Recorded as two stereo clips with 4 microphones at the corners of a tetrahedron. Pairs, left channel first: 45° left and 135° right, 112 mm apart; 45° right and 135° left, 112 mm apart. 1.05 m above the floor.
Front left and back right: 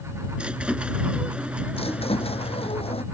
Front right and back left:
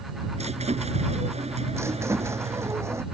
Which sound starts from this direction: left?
A squeak, at 1.7 s.